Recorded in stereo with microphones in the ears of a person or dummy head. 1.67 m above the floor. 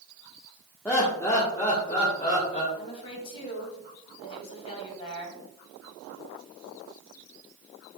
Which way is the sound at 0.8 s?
15° left (ahead or behind).